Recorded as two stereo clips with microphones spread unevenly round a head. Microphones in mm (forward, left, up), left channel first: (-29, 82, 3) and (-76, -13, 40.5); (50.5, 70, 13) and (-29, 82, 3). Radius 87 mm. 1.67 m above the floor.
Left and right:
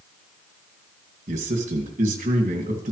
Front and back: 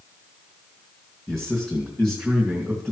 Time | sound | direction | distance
1.3 | a man speaking | 95° right | 2.5 m